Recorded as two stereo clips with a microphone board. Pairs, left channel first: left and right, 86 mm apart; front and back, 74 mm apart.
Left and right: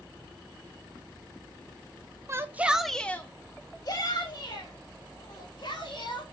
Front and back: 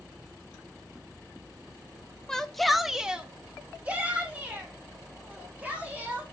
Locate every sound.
2.3 s a shout: 75° right, 0.8 m; by 6.2 s 110° left, 2.5 m